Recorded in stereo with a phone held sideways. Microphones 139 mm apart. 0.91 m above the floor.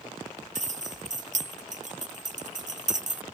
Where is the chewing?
No chewing in this recording.